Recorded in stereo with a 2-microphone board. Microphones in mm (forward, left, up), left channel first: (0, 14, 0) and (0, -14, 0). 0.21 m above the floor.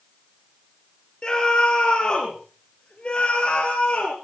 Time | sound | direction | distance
1.2 | a scream | 30° left (ahead or behind) | 4.5 m